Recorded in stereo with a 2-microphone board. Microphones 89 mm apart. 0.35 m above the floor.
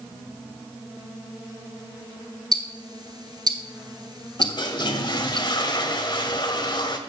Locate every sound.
2.5 s ticking: 45° right (ahead or behind), 1.2 m
4.4 s a toilet flushing: 55° left (ahead or behind), 1.2 m